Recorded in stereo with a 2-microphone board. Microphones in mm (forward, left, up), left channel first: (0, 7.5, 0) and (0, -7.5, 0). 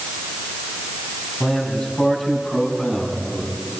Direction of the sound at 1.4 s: 80° left.